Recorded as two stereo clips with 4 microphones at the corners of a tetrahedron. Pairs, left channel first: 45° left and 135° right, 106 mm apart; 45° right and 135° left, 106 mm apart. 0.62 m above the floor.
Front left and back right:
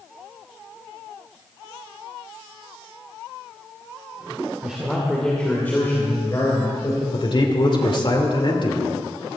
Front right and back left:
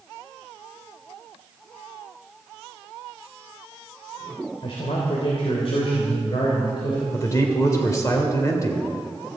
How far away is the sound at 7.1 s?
About 2.5 m.